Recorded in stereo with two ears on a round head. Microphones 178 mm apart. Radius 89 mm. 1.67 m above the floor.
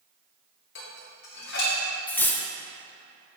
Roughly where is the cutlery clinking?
Centre.